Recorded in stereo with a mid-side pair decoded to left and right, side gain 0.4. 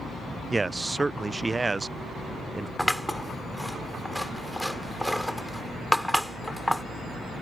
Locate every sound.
0.5 s a man speaking: 25° right
2.8 s scissors: straight ahead